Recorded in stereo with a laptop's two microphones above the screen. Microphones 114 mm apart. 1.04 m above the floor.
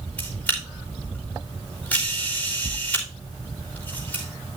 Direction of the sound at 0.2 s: 10° left (ahead or behind).